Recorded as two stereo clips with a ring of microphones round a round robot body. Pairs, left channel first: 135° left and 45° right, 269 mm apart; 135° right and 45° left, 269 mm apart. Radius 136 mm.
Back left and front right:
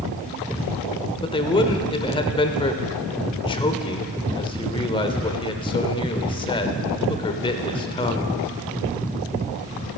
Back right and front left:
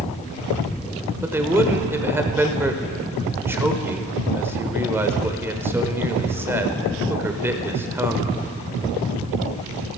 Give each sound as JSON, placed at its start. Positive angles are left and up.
{"t": 1.2, "sound": "a man speaking", "azimuth_deg": 110, "distance_m": 0.9}